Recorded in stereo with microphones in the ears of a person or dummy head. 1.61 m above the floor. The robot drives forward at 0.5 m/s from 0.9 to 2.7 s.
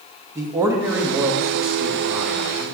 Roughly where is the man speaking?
Centre.